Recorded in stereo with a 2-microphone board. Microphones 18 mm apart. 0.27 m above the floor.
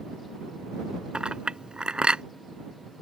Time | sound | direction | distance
1.1 | a clink | 70° right (ahead or behind) | ?